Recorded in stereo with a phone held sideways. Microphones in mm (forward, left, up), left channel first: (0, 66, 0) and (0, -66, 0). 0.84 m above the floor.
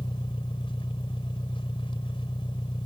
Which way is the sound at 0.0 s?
40° left (ahead or behind).